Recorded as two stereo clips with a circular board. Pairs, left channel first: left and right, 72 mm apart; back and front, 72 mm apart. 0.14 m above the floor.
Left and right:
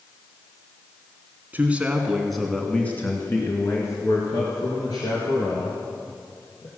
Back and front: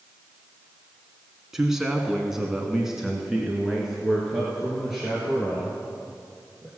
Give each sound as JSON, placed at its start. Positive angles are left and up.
{"t": 1.5, "sound": "a man speaking", "azimuth_deg": -75, "distance_m": 1.4}